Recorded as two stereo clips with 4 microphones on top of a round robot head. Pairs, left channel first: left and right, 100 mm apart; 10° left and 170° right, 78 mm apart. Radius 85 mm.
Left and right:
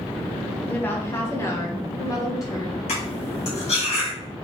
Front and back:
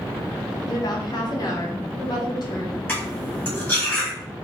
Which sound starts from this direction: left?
Cutlery clinking, at 2.9 s.